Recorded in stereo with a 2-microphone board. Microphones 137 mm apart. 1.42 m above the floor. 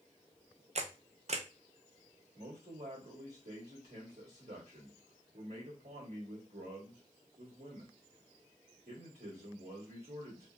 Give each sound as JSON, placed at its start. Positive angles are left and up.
{"t": 0.8, "sound": "a camera shutter", "side_deg": -55, "distance_m": 0.5}
{"t": 2.4, "sound": "a man speaking", "side_deg": -55, "distance_m": 1.9}